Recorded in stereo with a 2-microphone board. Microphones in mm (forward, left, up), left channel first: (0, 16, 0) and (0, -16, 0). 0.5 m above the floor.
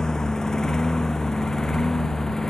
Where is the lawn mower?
25° left (ahead or behind); by 2.5 s 20° left (ahead or behind).